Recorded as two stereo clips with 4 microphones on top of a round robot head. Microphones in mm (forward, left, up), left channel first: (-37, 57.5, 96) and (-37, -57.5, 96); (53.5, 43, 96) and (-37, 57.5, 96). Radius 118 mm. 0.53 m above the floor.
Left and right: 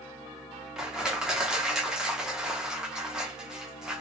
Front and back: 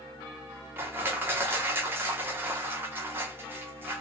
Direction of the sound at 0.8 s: 165° right.